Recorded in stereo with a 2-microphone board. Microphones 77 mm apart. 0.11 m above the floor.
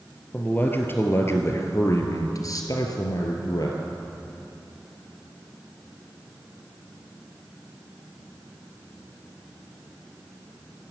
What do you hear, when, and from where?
0.3 s a man speaking: 20° left (ahead or behind), 1.8 m; by 3.8 s 55° left (ahead or behind), 1.8 m